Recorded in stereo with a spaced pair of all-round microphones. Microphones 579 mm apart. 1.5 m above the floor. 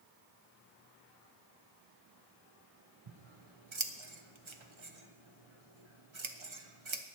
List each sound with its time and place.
3.1 s scissors: 55° right (ahead or behind), 1.0 m